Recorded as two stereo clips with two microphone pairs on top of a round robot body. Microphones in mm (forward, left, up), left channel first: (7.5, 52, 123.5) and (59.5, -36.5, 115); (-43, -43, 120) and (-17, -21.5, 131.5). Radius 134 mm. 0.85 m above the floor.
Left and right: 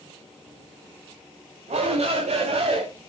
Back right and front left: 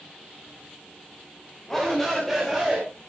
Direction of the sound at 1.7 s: 60° right.